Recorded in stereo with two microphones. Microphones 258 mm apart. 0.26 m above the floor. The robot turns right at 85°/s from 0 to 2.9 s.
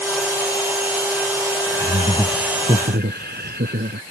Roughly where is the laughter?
Behind left.